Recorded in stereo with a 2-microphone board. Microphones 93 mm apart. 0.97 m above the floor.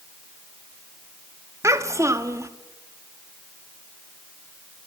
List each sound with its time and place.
1.6 s a child speaking: 30° right (ahead or behind), 1.5 m